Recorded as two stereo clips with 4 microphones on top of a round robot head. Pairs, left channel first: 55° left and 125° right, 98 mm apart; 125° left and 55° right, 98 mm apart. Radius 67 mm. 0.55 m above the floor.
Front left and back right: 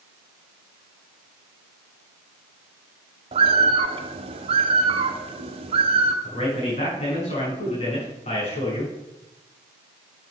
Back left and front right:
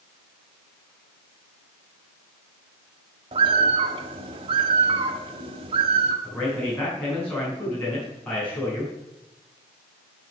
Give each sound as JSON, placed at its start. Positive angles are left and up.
{"t": 3.3, "sound": "a bird", "azimuth_deg": -90, "distance_m": 1.1}
{"t": 6.2, "sound": "a man speaking", "azimuth_deg": 50, "distance_m": 5.5}